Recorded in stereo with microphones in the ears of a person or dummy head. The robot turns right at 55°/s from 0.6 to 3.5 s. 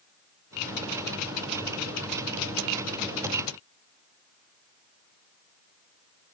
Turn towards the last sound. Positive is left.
No sound to turn to.